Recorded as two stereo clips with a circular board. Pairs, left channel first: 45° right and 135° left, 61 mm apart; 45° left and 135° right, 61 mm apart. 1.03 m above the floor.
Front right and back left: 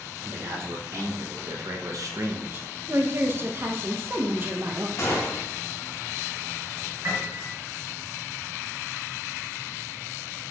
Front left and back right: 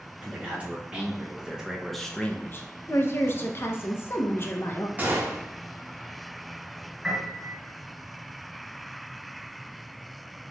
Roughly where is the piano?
Behind left.